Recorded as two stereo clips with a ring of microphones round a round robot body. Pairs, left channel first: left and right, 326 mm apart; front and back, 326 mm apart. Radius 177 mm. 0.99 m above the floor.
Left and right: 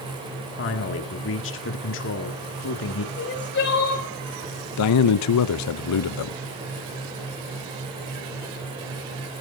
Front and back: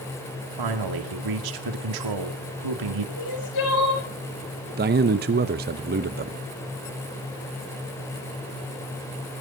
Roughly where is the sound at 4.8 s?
Behind left.